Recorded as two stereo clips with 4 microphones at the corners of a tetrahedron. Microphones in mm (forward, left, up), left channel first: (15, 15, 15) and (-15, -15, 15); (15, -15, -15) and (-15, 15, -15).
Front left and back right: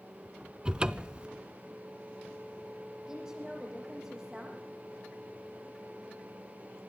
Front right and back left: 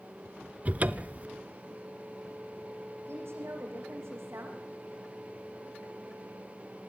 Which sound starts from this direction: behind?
A cupboard door, at 0.7 s.